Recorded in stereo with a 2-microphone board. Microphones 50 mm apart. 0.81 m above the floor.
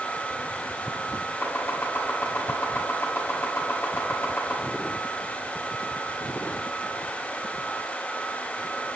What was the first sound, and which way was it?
Chopping, 50° left (ahead or behind).